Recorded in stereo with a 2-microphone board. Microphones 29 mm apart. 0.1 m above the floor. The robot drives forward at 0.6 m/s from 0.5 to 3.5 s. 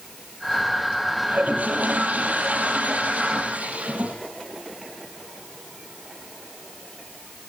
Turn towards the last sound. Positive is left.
turn(degrees=-55)  # may be behind; listen again after turning